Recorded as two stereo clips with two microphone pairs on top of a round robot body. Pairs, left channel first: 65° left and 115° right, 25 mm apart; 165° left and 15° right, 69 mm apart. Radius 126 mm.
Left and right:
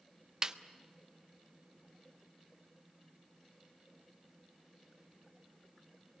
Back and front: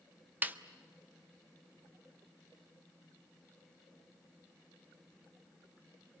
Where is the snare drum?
65° right, 1.4 m.